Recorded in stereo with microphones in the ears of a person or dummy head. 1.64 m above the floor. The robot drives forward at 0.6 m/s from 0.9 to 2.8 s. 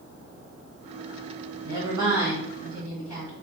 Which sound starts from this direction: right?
A woman speaking, at 1.6 s.